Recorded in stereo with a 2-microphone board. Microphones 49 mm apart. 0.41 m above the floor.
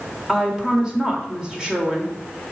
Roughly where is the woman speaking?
Centre.